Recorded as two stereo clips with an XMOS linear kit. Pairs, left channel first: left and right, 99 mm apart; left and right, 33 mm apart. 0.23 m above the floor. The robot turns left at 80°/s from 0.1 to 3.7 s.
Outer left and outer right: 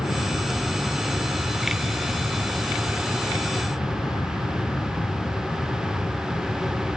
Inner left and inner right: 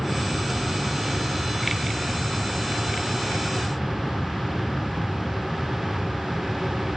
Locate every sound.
0.0 s an aircraft: 55° left; by 7.0 s 130° left